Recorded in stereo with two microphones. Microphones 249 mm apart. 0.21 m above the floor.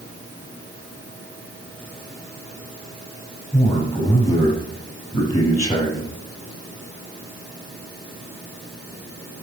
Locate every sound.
3.5 s a man speaking: 25° left (ahead or behind), 6.5 m